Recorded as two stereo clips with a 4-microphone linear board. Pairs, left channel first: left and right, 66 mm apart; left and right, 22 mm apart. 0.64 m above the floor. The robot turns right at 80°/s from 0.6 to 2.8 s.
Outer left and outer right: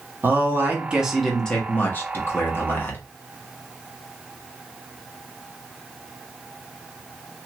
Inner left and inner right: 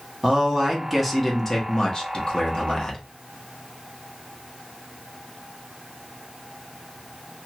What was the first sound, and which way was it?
A man speaking, 45° right.